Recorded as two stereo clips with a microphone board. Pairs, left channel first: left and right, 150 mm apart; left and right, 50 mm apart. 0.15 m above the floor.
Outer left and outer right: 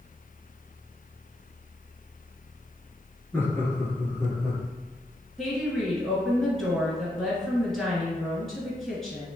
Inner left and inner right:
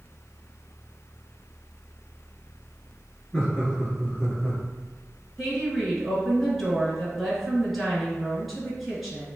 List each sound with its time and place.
3.3 s laughter: 15° left (ahead or behind), 1.5 m; by 4.6 s 25° left (ahead or behind), 2 m
5.4 s a woman speaking: centre (ahead or behind), 1.9 m